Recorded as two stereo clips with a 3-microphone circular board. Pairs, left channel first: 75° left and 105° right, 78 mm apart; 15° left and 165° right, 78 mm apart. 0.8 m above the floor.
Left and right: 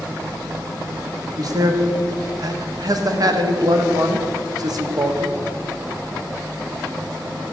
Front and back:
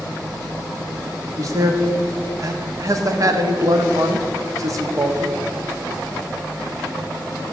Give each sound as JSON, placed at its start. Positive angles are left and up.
{"t": 1.4, "sound": "a man speaking", "azimuth_deg": -130, "distance_m": 0.9}